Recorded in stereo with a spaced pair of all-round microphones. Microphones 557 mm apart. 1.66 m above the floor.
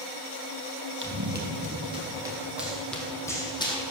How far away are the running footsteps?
About 2.5 m.